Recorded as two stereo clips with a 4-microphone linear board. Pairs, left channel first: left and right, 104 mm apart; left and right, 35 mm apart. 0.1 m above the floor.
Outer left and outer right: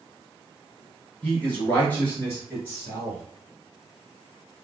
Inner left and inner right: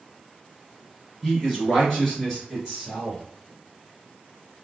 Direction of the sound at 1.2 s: 15° left (ahead or behind).